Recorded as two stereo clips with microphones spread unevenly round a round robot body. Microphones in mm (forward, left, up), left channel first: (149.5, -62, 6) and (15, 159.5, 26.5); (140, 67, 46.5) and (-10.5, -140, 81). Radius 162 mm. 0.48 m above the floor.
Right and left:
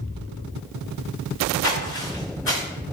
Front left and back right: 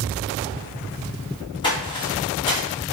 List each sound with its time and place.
1.6 s footsteps: 20° right, 1.9 m